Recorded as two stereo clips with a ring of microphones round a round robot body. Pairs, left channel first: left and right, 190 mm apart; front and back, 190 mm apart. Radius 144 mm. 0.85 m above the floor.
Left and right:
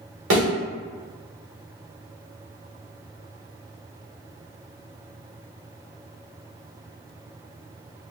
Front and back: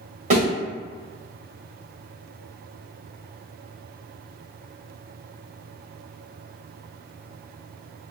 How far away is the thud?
About 1.7 m.